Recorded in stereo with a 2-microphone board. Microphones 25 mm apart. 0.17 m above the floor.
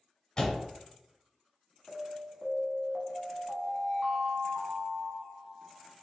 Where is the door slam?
30° left (ahead or behind), 0.9 m.